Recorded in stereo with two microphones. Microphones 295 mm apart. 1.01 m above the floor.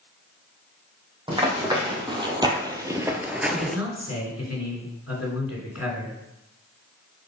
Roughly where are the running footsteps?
Centre.